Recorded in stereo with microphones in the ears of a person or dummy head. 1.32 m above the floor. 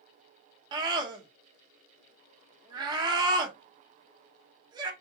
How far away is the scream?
About 1.3 m.